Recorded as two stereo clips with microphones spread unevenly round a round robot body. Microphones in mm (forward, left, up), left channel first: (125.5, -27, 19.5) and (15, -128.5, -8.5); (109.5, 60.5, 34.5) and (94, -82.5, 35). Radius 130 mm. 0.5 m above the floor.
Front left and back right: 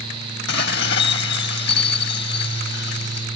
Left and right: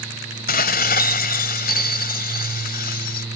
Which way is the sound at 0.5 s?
85° left.